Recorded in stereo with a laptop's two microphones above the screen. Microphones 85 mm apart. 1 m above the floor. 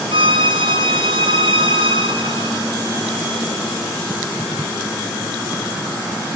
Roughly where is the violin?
Right.